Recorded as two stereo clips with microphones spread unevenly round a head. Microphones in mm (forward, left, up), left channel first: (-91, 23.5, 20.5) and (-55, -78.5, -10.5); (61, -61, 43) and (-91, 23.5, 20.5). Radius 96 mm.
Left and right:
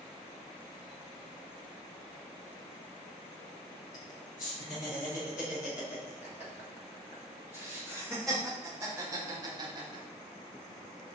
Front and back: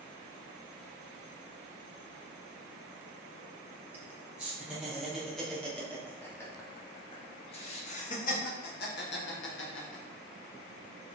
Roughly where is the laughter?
Left.